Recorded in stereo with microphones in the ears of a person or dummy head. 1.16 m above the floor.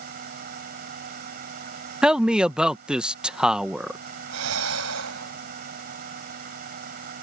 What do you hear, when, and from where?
0.0 s a fan: 50° right (ahead or behind)
2.0 s a man speaking: 5° right (ahead or behind)
4.3 s breathing: 90° right